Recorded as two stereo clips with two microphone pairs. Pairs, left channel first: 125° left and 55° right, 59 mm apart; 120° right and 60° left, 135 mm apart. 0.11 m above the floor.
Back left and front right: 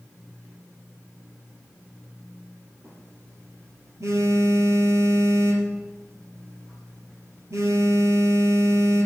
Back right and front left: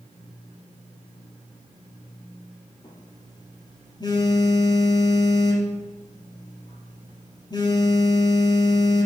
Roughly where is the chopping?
No chopping in this recording.